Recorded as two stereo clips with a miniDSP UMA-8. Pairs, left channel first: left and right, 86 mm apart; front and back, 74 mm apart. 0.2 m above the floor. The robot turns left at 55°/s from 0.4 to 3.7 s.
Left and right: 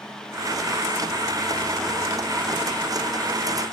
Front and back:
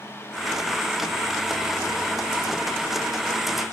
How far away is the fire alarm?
I don't hear a fire alarm.